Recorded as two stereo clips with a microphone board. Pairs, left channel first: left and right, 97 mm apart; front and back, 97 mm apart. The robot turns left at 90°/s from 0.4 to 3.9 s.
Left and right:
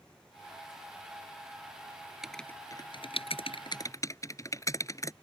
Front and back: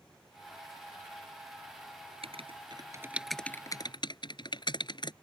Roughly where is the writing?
Behind.